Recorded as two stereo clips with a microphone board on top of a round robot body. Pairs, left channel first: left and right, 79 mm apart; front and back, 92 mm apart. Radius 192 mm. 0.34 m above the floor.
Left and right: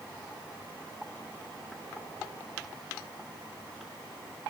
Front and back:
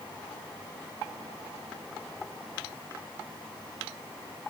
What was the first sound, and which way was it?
Only background noise.